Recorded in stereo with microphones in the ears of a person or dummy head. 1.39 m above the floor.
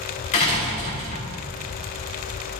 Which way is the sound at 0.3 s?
40° left (ahead or behind).